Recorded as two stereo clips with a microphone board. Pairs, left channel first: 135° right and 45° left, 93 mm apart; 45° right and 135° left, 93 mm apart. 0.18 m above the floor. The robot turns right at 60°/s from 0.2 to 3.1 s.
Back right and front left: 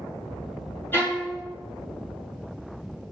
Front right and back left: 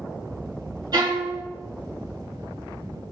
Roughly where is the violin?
Behind.